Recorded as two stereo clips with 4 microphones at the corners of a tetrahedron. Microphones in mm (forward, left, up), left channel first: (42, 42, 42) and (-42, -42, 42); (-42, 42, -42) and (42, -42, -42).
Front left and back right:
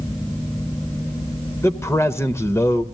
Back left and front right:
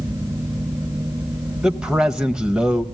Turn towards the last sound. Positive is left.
turn(degrees=25)